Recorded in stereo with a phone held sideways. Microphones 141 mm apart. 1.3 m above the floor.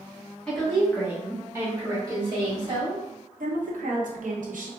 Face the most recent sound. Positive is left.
turn(degrees=-80)